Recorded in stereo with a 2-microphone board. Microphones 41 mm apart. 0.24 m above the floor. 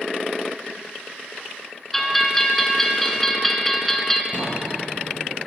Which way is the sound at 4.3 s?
40° left (ahead or behind).